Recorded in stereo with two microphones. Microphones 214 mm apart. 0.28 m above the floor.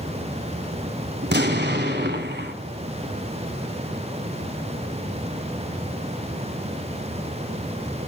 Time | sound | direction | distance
1.2 | an explosion | 55° right (ahead or behind) | 1.3 m